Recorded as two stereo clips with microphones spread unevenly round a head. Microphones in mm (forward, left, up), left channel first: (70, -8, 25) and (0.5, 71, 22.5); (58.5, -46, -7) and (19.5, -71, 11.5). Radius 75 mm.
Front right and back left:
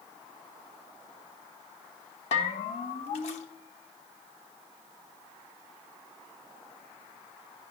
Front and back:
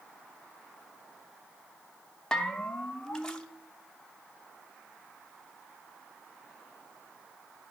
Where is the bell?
50° right, 0.9 m.